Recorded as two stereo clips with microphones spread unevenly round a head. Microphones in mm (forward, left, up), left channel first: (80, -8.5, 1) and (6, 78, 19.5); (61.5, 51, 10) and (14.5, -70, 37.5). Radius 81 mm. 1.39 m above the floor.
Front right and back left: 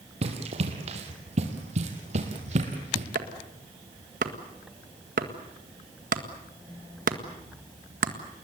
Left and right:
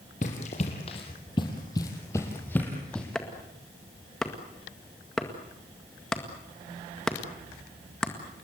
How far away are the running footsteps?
About 3 m.